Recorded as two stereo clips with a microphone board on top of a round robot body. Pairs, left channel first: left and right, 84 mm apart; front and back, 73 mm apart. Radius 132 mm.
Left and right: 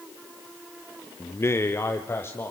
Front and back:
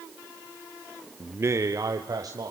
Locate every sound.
1.2 s a man speaking: 130° left, 0.9 m; by 2.5 s 150° left, 2.5 m